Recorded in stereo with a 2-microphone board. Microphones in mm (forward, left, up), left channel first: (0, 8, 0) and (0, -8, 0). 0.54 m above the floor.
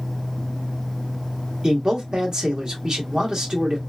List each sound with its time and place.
1.6 s a man speaking: 45° right (ahead or behind), 1.6 m